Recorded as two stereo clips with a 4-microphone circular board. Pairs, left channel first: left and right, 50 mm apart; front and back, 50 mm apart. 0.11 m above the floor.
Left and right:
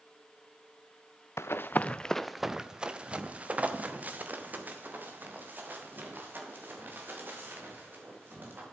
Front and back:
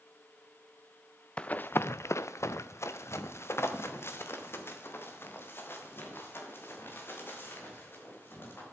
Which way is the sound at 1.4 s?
65° left.